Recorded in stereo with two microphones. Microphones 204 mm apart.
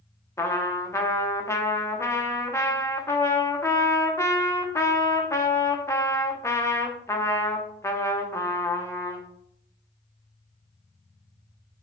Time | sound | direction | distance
0.4 | a trumpet | 15° left (ahead or behind) | 0.9 m